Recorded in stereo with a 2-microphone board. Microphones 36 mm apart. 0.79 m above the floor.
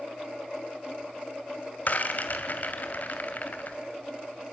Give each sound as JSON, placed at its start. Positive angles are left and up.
{"t": 1.9, "sound": "a rattle", "side_deg": 50, "distance_m": 2.0}